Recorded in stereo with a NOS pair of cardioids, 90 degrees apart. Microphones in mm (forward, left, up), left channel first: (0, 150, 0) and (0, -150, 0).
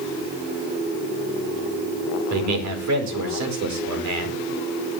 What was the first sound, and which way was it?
A man speaking, 65° right.